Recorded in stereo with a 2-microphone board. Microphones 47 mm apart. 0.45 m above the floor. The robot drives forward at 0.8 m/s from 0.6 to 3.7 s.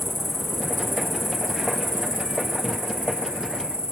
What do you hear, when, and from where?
0.0 s an insect: 55° left (ahead or behind), 1.2 m; by 3.9 s 30° left (ahead or behind), 2 m